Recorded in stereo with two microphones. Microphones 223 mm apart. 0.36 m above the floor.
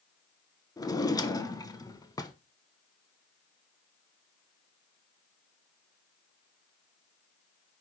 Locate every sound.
0.8 s a drawer: 15° left (ahead or behind), 0.7 m